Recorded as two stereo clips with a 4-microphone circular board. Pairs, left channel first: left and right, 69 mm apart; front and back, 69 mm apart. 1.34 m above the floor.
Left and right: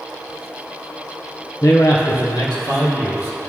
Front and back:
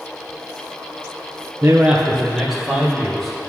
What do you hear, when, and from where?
1.6 s a man speaking: 135° left, 0.6 m; by 3.5 s 85° left, 2.5 m